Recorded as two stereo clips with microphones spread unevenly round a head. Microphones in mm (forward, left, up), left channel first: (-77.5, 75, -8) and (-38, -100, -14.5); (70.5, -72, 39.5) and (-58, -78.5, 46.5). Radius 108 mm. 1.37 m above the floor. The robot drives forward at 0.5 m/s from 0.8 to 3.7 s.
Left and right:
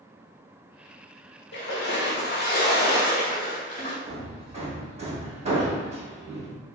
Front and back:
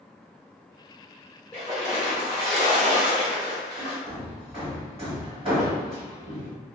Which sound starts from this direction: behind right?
Hammering, at 4.1 s.